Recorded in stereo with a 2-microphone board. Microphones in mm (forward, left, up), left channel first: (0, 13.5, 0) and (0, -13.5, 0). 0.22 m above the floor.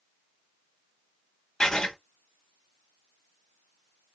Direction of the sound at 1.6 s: 20° left (ahead or behind).